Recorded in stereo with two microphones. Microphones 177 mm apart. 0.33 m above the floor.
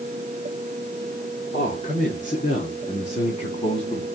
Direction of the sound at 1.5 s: 40° left (ahead or behind).